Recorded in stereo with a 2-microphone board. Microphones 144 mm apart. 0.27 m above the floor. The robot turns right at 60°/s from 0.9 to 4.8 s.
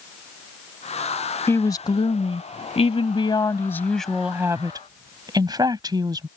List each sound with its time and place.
1.5 s a woman speaking: 25° left; by 6.3 s 135° right